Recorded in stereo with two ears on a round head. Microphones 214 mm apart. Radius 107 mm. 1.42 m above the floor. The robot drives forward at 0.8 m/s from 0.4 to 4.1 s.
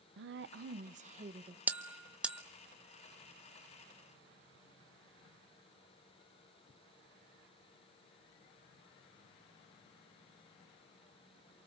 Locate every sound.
0.2 s a woman speaking: 50° right (ahead or behind), 0.9 m; by 1.6 s 25° right (ahead or behind), 1.7 m
1.7 s a bell: 5° right (ahead or behind), 0.8 m